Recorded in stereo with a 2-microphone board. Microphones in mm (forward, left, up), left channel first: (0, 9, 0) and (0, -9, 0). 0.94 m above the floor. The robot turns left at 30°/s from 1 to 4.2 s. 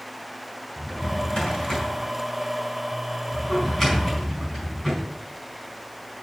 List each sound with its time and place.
0.8 s a drawer: 75° left (ahead or behind), 5 m; by 5.0 s 10° left (ahead or behind), 5 m